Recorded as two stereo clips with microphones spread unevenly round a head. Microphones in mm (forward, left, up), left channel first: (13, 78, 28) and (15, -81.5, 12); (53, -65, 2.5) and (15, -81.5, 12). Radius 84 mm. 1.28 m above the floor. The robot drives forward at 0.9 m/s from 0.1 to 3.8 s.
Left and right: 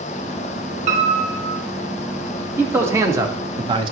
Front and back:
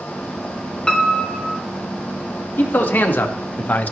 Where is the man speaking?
15° right, 1.9 m; by 3.9 s 30° right, 0.9 m.